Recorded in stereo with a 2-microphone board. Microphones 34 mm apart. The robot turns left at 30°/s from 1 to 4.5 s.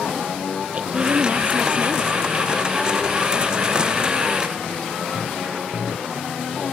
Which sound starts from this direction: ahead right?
A woman speaking, at 0.7 s.